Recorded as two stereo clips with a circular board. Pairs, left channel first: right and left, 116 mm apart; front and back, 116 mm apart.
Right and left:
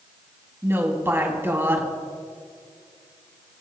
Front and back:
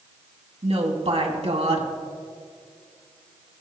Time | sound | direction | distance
0.6 | a woman speaking | 160° left | 3 m